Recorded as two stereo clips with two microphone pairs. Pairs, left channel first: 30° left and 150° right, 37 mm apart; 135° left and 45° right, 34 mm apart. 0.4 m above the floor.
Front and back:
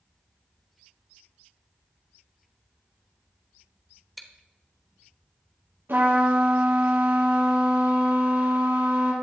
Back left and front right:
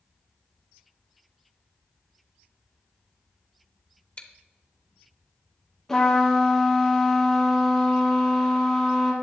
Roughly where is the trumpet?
Behind right.